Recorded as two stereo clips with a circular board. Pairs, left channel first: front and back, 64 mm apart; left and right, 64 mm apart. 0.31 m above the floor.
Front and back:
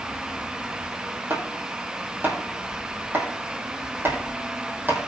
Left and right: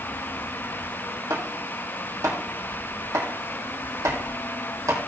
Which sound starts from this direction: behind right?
Chopping, at 1.3 s.